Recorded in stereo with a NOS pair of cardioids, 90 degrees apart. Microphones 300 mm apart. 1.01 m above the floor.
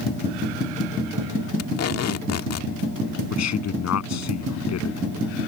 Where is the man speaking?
60° left.